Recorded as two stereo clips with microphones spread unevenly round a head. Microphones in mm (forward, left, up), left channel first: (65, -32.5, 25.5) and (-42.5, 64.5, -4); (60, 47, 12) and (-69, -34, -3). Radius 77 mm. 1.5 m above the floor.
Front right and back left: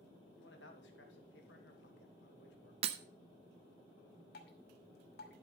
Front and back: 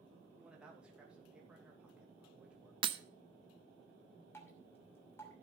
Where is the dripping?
40° right, 2.5 m.